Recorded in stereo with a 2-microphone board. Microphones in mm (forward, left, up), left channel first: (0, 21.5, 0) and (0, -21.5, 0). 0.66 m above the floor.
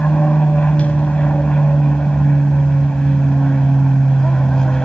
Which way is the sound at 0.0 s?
30° left (ahead or behind).